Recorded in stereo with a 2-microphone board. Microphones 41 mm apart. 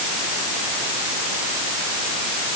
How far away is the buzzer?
No buzzer in this recording.